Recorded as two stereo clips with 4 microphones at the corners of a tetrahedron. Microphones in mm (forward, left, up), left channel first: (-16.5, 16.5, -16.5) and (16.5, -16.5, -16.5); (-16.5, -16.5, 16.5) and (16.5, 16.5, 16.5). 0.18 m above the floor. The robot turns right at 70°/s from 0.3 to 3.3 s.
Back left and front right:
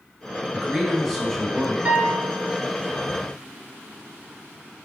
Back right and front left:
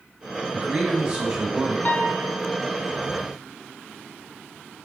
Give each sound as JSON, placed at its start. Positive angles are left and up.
{"t": 0.5, "sound": "a man speaking", "azimuth_deg": 20, "distance_m": 1.2}
{"t": 1.9, "sound": "a piano", "azimuth_deg": -95, "distance_m": 0.6}